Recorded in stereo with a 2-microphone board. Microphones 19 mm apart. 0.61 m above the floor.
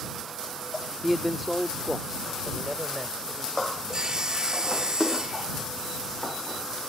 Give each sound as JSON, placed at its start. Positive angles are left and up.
{"t": 1.0, "sound": "a man speaking", "side_deg": -5}
{"t": 3.9, "sound": "sawing", "side_deg": -35}